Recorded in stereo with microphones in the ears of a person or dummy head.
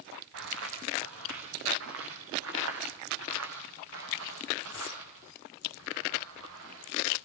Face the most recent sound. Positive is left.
turn(degrees=-85)